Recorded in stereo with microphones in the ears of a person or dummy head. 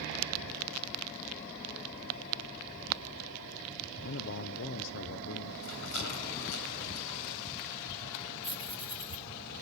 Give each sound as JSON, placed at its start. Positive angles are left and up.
{"t": 4.0, "sound": "a man speaking", "side_deg": 60, "distance_m": 0.5}
{"t": 5.6, "sound": "a rattle", "side_deg": 70, "distance_m": 3.5}
{"t": 8.4, "sound": "keys jangling", "side_deg": 30, "distance_m": 1.9}